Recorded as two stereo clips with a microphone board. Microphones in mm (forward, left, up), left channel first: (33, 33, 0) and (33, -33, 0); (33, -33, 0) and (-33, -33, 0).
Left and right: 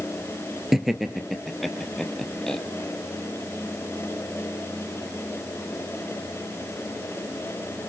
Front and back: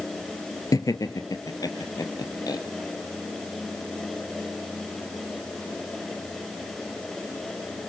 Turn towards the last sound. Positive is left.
turn(degrees=5)